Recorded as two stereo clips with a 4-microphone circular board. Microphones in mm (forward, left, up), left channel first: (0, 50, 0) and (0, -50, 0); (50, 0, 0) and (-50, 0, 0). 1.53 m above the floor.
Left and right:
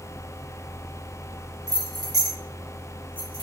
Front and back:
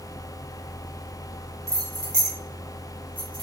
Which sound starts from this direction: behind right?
Keys jangling, at 1.7 s.